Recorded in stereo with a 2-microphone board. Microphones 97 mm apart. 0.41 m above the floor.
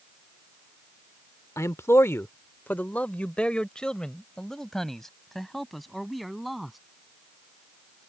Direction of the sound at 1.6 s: 30° left (ahead or behind).